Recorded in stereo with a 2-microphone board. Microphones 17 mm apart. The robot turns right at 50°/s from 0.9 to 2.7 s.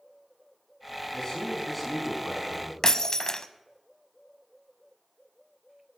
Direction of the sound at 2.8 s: 35° left (ahead or behind).